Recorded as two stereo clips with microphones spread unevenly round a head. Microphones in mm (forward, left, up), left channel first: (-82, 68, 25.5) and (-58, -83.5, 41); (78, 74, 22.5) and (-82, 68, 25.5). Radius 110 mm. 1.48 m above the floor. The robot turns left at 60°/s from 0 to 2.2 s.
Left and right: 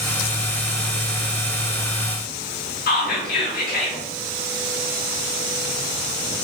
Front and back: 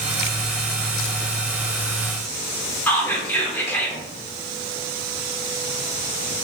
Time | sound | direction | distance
2.9 | whispering | 80° left | 0.6 m